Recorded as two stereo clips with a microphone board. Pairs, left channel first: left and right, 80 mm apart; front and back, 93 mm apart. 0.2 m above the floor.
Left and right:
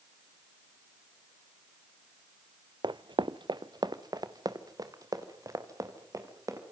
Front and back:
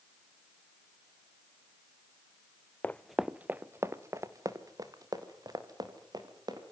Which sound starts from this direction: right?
Running footsteps, at 2.8 s.